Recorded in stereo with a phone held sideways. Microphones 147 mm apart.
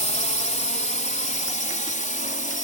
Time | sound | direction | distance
0.0 | a drone | 55° left (ahead or behind) | ?